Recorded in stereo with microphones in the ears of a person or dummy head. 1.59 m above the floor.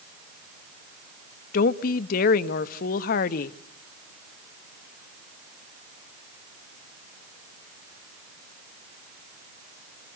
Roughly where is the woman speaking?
Left.